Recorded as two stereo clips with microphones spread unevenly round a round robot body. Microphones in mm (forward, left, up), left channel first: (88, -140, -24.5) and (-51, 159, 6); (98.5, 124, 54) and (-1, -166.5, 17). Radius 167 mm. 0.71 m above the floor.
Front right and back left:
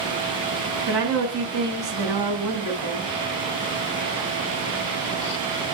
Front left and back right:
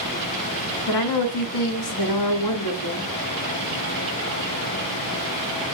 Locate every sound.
0.9 s a woman speaking: 85° left, 7.5 m